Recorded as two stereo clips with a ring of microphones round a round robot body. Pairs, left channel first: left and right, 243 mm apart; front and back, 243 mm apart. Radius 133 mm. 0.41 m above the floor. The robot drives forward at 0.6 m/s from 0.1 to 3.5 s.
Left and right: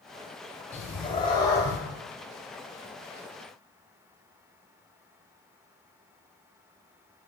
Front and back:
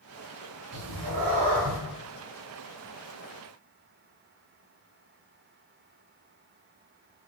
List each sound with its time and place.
0.7 s a cat meowing: 155° left, 0.8 m; by 1.8 s 165° left, 1.4 m